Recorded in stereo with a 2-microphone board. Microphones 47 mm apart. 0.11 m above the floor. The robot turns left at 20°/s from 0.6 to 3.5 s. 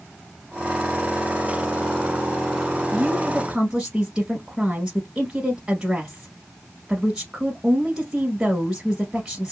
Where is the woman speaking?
20° right (ahead or behind), 1.3 m.